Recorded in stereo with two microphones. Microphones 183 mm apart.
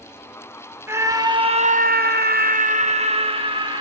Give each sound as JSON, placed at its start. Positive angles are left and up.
{"t": 0.9, "sound": "a scream", "side_deg": -15, "distance_m": 1.8}